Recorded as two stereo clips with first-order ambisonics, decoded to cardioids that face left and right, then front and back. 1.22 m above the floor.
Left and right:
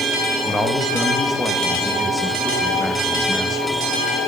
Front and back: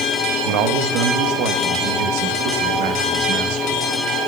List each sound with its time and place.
0.5 s a man speaking: 170° left, 1.4 m